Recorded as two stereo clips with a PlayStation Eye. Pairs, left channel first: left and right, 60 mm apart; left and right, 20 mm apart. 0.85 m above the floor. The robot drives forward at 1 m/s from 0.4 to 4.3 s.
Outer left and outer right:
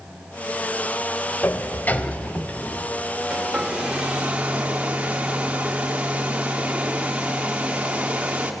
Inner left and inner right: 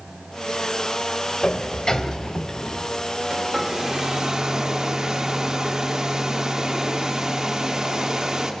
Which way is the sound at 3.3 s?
15° right (ahead or behind).